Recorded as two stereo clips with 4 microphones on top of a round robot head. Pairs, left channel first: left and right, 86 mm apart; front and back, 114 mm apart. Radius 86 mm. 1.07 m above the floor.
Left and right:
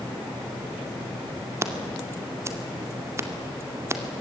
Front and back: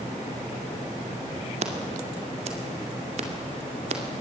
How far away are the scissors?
About 2 m.